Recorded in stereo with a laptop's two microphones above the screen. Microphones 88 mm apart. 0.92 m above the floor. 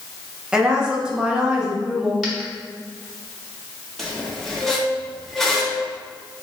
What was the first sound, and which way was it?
A woman speaking, 10° right (ahead or behind).